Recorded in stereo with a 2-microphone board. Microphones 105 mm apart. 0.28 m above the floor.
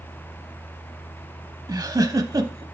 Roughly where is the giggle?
Right.